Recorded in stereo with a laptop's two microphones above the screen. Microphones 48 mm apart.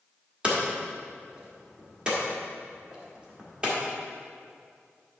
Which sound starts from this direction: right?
Hammering, at 0.4 s.